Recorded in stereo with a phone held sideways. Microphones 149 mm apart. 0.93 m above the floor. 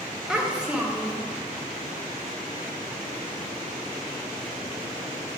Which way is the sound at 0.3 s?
5° right (ahead or behind).